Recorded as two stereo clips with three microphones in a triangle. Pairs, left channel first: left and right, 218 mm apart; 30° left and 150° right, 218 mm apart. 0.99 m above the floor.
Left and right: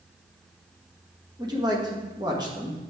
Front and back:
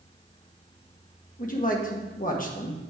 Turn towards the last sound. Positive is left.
turn(degrees=-20)